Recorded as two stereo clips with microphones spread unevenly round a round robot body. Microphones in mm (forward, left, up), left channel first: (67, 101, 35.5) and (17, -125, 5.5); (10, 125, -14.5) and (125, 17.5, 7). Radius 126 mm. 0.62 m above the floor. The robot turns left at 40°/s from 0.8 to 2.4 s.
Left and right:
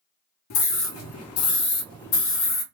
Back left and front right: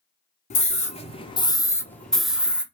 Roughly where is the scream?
Left.